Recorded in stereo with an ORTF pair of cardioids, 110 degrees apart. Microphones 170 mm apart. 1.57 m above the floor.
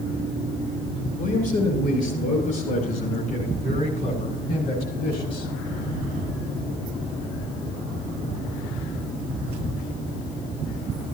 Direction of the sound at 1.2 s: 55° left.